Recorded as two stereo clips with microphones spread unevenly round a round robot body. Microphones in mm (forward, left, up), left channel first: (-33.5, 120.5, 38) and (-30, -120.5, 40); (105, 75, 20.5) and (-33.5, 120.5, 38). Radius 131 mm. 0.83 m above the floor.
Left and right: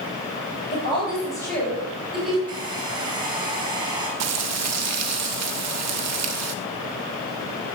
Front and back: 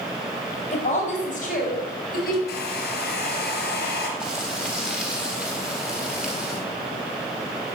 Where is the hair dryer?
15° right, 3 m.